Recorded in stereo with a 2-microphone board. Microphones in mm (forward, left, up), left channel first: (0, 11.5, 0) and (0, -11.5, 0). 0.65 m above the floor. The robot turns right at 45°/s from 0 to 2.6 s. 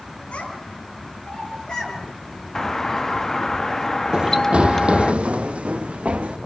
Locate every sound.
0.3 s a child speaking: 65° left (ahead or behind), 8 m; by 2.0 s 40° left (ahead or behind), 8 m
2.5 s a doorbell: 20° left (ahead or behind), 1.0 m; by 5.1 s 15° left (ahead or behind), 1.0 m
4.1 s running footsteps: 35° right (ahead or behind), 0.7 m; by 6.4 s 75° right (ahead or behind), 2.5 m